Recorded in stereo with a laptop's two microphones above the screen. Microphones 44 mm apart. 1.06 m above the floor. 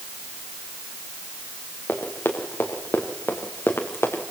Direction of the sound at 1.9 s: 60° left (ahead or behind).